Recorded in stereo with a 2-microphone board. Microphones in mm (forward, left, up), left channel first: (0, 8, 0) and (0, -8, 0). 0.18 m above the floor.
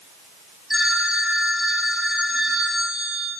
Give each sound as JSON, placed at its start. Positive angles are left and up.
{"t": 0.7, "sound": "a phone ringing", "side_deg": -20, "distance_m": 6.5}